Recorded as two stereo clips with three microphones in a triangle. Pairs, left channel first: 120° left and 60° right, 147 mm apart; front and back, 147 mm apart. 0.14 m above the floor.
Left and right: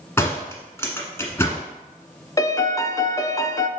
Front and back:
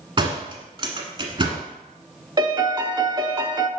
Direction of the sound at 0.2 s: Straight behind.